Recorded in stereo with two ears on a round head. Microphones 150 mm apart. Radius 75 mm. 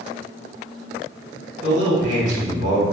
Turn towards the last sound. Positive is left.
turn(degrees=-45)  # may be behind; listen again after turning